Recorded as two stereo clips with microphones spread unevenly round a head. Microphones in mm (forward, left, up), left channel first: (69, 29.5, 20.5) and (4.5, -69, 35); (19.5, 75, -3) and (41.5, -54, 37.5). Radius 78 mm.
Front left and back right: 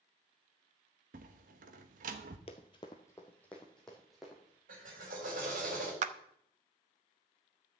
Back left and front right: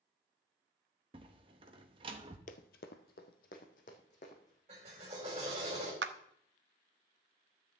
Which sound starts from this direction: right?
A clap, at 6.0 s.